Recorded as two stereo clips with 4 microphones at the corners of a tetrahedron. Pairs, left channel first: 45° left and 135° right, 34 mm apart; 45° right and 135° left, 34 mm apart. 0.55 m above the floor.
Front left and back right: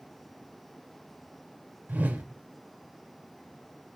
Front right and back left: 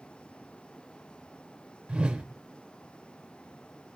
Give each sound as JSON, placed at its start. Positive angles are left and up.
{"t": 1.9, "sound": "a whoosh", "azimuth_deg": -165, "distance_m": 0.8}